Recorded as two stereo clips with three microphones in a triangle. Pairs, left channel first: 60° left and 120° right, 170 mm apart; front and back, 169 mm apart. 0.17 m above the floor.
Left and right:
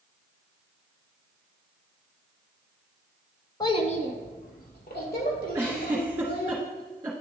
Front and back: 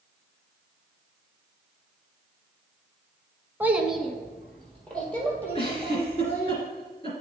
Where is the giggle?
45° right, 1.7 m.